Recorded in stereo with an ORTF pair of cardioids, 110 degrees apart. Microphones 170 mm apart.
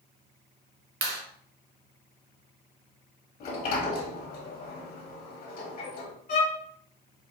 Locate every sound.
1.0 s a clap: 60° right, 1.0 m
3.4 s a sliding door: 60° left, 1.4 m
6.3 s a violin: 55° left, 1.3 m